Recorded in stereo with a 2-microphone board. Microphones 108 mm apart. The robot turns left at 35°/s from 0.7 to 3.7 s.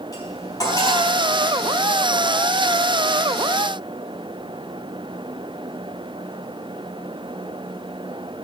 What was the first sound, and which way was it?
Cutlery clinking, 35° left (ahead or behind).